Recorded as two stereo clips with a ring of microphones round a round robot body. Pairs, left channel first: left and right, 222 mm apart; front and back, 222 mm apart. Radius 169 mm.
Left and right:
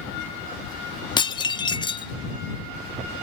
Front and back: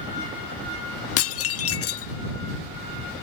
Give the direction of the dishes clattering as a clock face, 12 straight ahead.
11 o'clock.